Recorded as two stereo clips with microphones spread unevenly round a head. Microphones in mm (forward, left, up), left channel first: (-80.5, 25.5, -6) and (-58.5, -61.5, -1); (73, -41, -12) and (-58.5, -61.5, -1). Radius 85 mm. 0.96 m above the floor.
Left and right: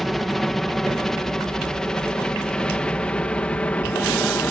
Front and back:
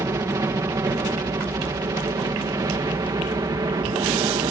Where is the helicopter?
170° right; by 4.5 s 160° left.